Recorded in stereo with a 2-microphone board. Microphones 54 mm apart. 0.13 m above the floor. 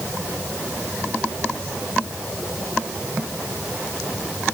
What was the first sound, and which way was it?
Only background noise.